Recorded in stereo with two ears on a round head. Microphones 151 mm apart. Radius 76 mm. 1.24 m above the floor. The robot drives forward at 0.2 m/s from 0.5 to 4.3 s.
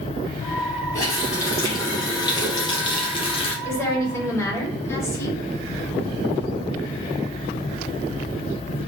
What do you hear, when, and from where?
0.9 s a running tap: 20° left (ahead or behind), 1.0 m; by 3.5 s 35° left (ahead or behind), 0.6 m
3.6 s a woman speaking: 20° left (ahead or behind), 1.0 m; by 5.4 s 15° left (ahead or behind), 1.1 m